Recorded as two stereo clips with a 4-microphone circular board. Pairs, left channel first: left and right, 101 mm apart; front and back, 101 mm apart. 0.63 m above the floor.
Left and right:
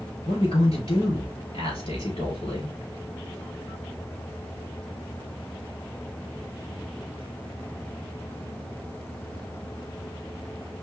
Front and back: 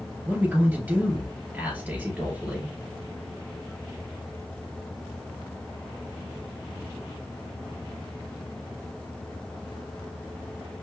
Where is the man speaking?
110° left, 3 m.